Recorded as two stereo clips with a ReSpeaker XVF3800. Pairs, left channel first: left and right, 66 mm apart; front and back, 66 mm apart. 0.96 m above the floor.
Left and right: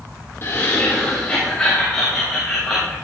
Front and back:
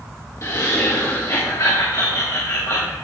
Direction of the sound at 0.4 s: 40° left.